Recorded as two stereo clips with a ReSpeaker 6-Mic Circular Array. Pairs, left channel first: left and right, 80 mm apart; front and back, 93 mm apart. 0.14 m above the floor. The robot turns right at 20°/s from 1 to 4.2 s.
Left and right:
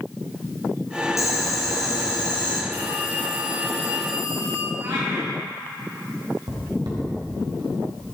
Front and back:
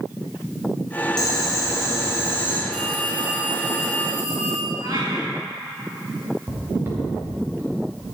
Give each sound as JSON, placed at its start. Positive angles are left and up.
{"t": 1.2, "sound": "boiling", "azimuth_deg": 40, "distance_m": 3.5}
{"t": 2.7, "sound": "a phone ringing", "azimuth_deg": 100, "distance_m": 5.0}
{"t": 4.8, "sound": "a cat meowing", "azimuth_deg": -135, "distance_m": 5.0}
{"t": 6.5, "sound": "footsteps", "azimuth_deg": -120, "distance_m": 4.5}